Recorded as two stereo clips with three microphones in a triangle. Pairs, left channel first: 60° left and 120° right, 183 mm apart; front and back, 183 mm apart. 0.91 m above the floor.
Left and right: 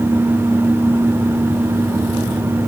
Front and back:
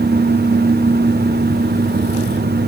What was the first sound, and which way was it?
Only background noise.